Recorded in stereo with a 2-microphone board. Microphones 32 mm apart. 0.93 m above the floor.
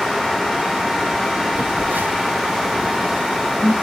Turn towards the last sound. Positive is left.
turn(degrees=-70)  # may be behind; listen again after turning